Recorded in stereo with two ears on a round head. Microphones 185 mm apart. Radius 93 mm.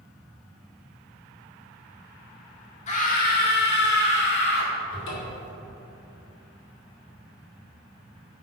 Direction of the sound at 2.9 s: 35° left (ahead or behind).